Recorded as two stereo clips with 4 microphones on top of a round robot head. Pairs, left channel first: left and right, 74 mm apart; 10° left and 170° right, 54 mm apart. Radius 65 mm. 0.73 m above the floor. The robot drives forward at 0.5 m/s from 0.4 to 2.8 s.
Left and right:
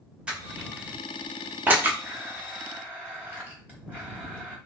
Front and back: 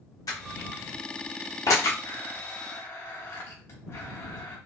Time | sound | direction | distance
0.3 | crushing | 15° right | 1.6 m
2.0 | a blender | 20° right | 3 m